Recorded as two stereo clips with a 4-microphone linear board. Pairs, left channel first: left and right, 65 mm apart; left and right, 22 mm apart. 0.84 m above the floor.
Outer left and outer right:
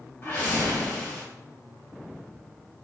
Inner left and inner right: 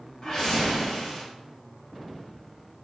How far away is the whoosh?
About 1.1 m.